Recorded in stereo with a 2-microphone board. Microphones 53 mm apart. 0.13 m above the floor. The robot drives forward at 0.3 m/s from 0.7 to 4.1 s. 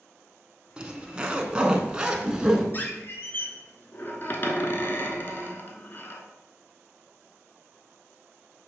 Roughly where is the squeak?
Left.